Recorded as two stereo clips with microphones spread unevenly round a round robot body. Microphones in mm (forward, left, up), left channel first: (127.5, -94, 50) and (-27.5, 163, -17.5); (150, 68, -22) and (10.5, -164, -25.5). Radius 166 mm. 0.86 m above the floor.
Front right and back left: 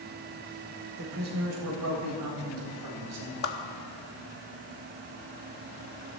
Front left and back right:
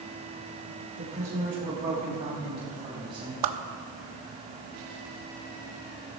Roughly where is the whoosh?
Behind right.